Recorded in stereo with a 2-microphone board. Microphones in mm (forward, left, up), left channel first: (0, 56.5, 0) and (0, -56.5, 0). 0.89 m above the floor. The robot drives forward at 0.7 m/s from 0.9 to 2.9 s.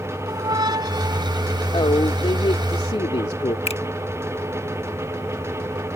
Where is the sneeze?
No sneeze in this recording.